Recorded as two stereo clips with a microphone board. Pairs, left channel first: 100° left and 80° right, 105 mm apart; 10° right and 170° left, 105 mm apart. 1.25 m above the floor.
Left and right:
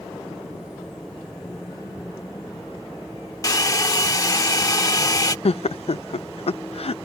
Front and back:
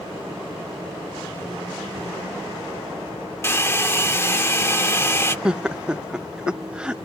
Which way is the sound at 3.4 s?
50° left.